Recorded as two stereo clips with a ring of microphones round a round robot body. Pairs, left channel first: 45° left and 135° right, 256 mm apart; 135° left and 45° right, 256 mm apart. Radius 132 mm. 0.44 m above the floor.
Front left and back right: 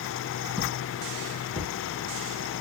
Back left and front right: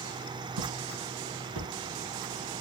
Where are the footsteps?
45° right, 5 m; by 1.7 s 30° right, 5 m.